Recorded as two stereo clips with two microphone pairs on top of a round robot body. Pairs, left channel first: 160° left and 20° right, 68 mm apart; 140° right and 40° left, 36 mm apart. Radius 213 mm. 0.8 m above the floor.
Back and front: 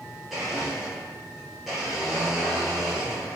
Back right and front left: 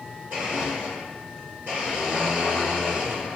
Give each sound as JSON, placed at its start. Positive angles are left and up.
{"t": 0.3, "sound": "a blender", "azimuth_deg": 65, "distance_m": 0.6}